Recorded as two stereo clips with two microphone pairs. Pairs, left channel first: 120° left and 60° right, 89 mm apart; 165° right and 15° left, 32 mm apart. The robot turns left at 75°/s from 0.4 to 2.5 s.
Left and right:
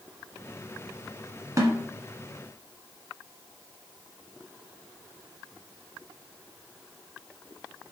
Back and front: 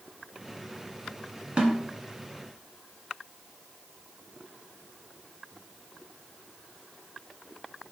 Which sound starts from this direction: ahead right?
A snare drum, at 1.6 s.